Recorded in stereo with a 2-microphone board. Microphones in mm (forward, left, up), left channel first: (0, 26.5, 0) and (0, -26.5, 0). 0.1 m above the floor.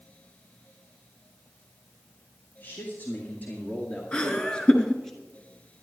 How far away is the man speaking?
About 3 m.